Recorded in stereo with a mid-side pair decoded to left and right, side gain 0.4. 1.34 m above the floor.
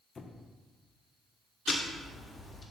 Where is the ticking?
35° left, 1.4 m.